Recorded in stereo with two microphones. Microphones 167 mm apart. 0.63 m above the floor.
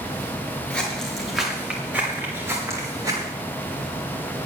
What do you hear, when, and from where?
0.7 s footsteps: 5° left (ahead or behind), 5 m; by 3.3 s 20° right (ahead or behind), 7 m